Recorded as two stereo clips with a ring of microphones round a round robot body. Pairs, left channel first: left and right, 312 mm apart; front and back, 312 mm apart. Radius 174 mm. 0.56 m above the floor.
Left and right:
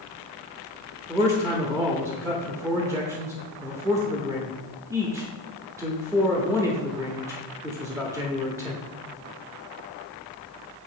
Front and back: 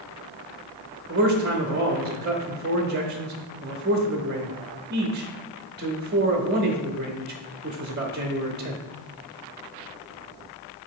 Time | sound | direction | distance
1.1 | a man speaking | 165° right | 0.9 m